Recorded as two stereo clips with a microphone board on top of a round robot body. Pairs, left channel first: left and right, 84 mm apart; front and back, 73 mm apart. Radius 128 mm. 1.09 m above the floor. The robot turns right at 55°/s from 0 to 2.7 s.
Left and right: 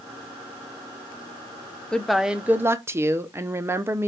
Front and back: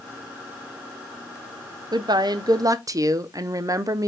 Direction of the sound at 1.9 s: 170° left.